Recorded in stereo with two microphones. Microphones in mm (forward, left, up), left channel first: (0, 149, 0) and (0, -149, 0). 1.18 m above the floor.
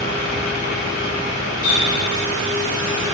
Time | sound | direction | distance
1.6 | a running tap | 50° left (ahead or behind) | 6.5 m